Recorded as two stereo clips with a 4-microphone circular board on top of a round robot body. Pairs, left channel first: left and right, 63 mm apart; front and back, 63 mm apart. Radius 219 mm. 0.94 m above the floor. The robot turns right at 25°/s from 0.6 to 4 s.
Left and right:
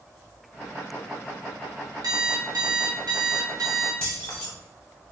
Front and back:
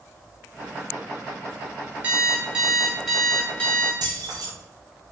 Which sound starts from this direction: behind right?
An alarm clock, at 2.0 s.